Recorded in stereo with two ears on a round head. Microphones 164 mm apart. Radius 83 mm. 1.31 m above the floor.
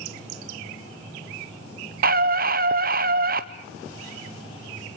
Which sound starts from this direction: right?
A scream, at 2.0 s.